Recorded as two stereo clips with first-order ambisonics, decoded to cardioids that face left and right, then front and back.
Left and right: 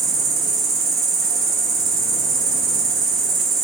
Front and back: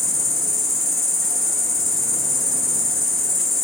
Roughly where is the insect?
Ahead right.